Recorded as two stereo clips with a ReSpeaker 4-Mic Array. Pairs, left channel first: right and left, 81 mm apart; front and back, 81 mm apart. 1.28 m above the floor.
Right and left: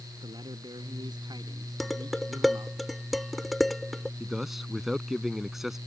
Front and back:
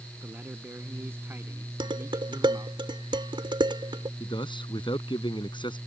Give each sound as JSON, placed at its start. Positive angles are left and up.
{"t": 0.2, "sound": "a man speaking", "azimuth_deg": 110}
{"t": 1.8, "sound": "dishes clattering", "azimuth_deg": 180}
{"t": 4.2, "sound": "a man speaking", "azimuth_deg": 5}